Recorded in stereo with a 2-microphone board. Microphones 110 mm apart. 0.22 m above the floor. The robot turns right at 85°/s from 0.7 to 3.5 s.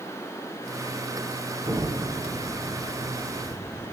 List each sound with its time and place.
1.6 s an explosion: 40° right, 2.5 m; by 3.9 s 120° left, 2.5 m